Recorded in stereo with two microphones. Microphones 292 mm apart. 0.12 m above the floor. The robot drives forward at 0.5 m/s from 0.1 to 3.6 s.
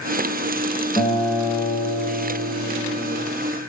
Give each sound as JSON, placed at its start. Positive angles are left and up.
{"t": 1.0, "sound": "a guitar", "side_deg": 15, "distance_m": 4.5}